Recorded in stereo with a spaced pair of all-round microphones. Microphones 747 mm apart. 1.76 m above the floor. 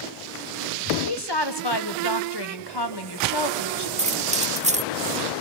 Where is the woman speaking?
35° left (ahead or behind), 1.4 m.